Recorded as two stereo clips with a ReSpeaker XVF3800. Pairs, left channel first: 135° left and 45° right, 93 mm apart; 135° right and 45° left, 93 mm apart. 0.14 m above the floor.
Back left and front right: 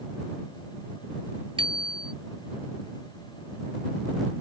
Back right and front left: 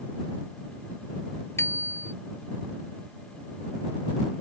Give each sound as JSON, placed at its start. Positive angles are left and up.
{"t": 1.6, "sound": "a bicycle bell", "azimuth_deg": -70}